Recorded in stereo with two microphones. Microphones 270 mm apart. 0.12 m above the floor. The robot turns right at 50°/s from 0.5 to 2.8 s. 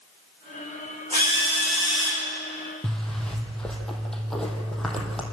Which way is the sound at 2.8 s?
Centre (ahead or behind).